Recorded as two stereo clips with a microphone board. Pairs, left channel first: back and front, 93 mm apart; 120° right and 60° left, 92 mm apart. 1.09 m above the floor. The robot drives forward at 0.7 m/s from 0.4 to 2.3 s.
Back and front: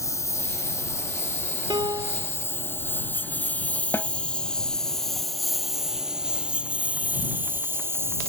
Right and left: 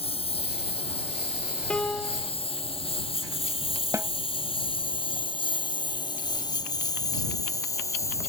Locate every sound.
0.0 s a lawn mower: 120° right; by 8.3 s 60° right
1.7 s a piano: 40° right; by 2.3 s 45° right
3.9 s a snare drum: 120° left